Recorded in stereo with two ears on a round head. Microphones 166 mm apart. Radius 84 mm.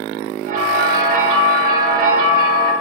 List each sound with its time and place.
0.5 s a bell: 55° right (ahead or behind), 4.5 m